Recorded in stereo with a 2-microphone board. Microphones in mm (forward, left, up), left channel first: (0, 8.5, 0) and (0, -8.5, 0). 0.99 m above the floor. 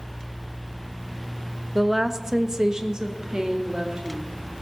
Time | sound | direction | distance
1.8 | a woman speaking | centre (ahead or behind) | 0.7 m